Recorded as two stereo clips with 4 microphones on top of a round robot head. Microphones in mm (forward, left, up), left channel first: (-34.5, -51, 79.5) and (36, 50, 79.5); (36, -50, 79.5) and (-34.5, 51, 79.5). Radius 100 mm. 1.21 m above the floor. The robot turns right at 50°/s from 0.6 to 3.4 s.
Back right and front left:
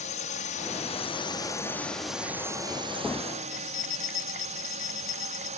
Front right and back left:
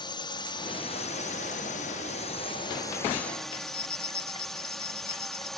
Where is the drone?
105° right; by 5.6 s 35° left.